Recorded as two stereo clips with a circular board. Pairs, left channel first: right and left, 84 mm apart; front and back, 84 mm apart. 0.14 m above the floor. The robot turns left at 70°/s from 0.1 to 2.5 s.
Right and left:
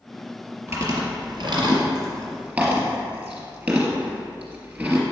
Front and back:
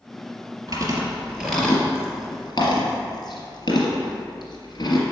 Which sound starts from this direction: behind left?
Chewing, at 0.7 s.